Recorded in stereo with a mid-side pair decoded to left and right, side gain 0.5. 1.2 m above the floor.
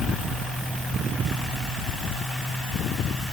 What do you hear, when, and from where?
Only background noise.